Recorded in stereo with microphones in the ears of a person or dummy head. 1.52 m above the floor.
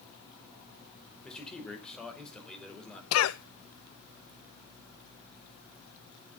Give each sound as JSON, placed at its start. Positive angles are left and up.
{"t": 1.2, "sound": "a man speaking", "side_deg": -5, "distance_m": 5.0}
{"t": 3.1, "sound": "a cough", "side_deg": 80, "distance_m": 0.7}